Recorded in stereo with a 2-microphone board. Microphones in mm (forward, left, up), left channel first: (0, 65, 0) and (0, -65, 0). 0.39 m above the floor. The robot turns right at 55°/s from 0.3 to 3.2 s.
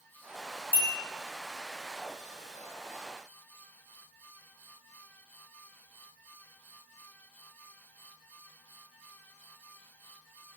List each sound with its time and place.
0.7 s a bell: 20° right (ahead or behind), 1.0 m